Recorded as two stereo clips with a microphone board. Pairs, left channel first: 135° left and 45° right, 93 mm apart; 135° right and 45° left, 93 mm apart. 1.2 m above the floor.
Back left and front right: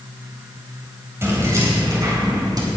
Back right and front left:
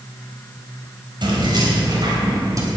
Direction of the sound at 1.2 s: 15° left.